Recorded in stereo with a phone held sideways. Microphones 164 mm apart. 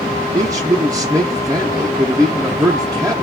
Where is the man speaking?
20° right (ahead or behind), 0.6 m.